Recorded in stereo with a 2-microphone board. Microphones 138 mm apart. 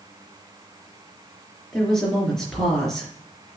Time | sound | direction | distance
1.7 | a woman speaking | 5° left (ahead or behind) | 3.5 m